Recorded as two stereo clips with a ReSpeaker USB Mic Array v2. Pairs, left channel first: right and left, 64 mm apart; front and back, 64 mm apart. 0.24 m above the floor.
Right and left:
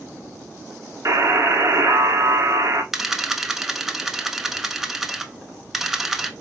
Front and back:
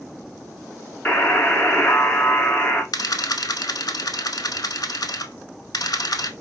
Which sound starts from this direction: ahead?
A camera shutter, at 2.9 s.